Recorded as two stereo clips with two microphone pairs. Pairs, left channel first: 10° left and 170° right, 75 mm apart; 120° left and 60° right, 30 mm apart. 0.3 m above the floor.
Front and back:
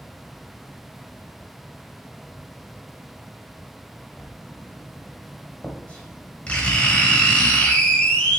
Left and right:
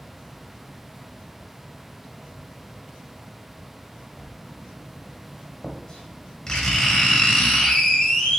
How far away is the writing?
About 1.8 m.